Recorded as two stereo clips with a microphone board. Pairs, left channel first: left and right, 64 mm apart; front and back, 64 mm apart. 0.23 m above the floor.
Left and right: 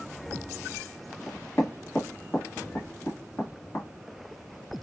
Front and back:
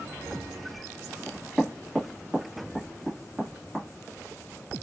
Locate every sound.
1.3 s knocking: 110° left, 1.5 m